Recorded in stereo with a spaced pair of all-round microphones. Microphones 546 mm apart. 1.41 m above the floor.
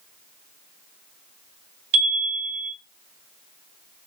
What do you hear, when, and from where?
1.9 s a chime: 70° right (ahead or behind), 2 m